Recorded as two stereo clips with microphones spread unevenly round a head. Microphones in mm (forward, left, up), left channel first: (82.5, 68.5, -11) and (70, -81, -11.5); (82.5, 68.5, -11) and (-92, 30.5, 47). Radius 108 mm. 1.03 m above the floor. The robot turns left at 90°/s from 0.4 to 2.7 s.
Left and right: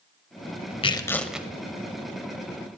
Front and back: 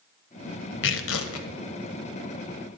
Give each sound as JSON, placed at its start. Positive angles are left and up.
{"t": 0.8, "sound": "tearing paper", "azimuth_deg": 40, "distance_m": 1.2}